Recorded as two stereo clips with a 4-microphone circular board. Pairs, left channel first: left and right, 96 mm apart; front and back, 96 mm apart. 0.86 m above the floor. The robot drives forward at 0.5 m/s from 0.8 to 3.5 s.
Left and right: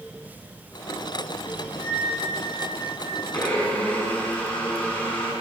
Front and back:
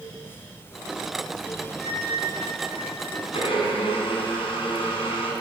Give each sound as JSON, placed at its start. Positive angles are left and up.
{"t": 1.8, "sound": "a flute", "azimuth_deg": -60, "distance_m": 4.5}
{"t": 3.3, "sound": "a blender", "azimuth_deg": 15, "distance_m": 7.5}